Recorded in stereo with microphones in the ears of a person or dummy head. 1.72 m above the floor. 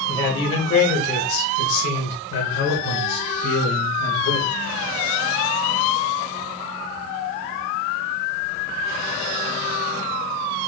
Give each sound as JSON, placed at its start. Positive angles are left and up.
{"t": 0.1, "sound": "a man speaking", "side_deg": 20, "distance_m": 1.1}